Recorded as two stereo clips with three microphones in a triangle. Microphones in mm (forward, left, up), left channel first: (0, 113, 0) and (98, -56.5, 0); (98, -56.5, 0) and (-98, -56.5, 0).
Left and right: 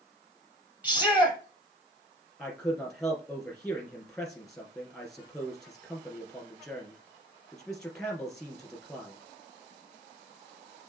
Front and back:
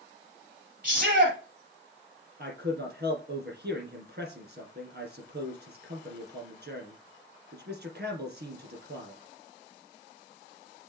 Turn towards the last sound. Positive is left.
turn(degrees=-155)